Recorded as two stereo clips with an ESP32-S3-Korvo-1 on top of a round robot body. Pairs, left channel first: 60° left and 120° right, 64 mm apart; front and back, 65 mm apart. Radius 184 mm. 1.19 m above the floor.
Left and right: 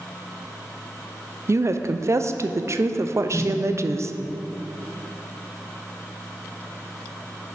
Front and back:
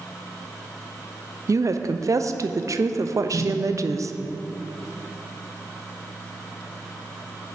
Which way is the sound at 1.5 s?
155° right.